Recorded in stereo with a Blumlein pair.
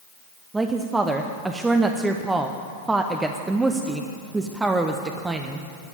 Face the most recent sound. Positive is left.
turn(degrees=-10)